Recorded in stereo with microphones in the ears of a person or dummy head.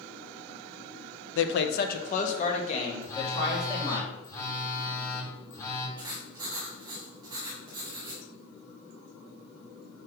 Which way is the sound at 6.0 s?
25° right (ahead or behind).